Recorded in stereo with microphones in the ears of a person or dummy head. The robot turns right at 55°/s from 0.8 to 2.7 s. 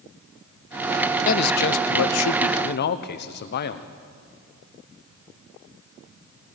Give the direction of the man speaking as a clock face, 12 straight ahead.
11 o'clock.